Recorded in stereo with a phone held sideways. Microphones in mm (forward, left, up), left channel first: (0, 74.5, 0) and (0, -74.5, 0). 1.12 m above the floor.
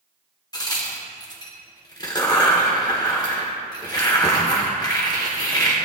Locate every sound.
0.5 s a crack: 25° left (ahead or behind), 1.5 m